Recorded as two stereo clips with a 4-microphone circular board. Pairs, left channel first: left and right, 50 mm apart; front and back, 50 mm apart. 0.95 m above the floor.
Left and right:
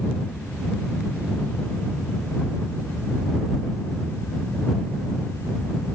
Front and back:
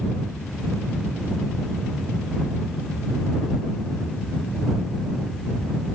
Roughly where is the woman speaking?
No woman speaking in this recording.